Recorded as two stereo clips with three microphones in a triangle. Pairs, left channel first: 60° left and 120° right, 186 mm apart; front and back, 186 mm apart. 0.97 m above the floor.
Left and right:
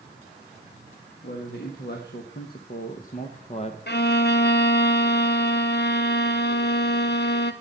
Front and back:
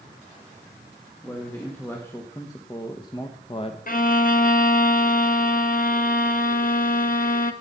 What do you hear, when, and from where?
1.2 s a man speaking: 80° left, 1.7 m; by 3.8 s 30° left, 0.8 m
3.9 s a violin: 40° left, 0.9 m